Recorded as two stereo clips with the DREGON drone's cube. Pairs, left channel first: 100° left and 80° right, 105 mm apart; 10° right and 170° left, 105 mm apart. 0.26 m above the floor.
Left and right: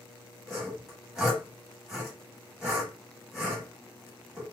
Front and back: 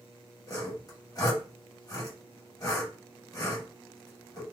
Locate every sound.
0.5 s sawing: straight ahead, 1.9 m